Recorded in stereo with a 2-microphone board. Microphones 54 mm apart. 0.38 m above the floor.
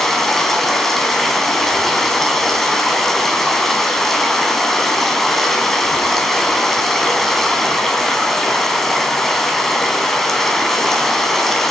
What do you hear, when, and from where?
0.0 s running water: 5° left (ahead or behind), 2.5 m